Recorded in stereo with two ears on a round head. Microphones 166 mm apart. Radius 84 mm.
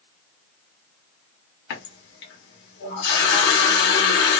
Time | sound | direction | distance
1.7 | a running tap | 65° left (ahead or behind) | 1.0 m